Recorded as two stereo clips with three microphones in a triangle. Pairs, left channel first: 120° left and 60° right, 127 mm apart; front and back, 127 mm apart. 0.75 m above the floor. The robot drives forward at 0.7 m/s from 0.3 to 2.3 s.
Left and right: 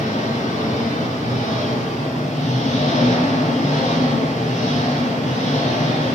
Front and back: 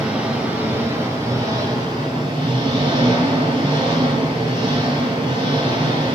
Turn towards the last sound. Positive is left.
turn(degrees=130)